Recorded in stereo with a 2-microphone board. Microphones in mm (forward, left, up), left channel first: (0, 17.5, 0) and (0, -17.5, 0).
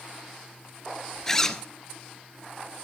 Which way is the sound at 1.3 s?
15° left (ahead or behind).